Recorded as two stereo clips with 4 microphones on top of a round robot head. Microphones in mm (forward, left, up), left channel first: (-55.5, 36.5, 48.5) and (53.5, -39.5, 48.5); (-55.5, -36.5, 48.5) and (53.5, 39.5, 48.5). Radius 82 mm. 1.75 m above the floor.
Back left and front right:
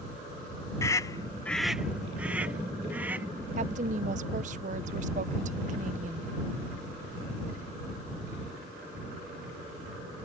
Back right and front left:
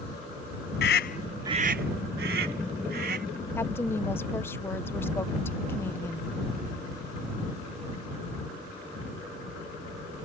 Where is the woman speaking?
70° right.